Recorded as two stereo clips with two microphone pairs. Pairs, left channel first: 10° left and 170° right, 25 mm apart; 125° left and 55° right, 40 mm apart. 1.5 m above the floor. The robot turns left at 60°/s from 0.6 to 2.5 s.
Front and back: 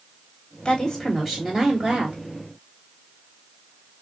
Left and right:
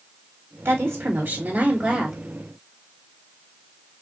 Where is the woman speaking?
50° right, 3.5 m; by 2.2 s 145° right, 3.5 m.